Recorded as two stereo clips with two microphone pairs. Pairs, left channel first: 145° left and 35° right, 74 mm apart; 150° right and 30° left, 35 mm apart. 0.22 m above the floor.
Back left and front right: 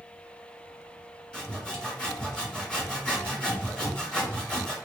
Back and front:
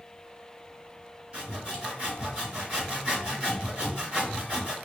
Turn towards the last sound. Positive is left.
turn(degrees=70)